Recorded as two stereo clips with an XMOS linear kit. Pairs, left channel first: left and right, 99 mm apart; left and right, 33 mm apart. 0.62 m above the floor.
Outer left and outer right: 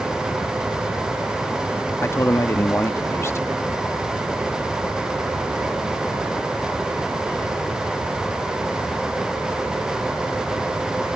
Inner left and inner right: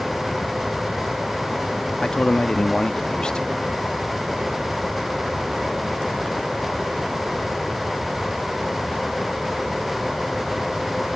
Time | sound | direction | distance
2.0 | a man speaking | 25° left (ahead or behind) | ?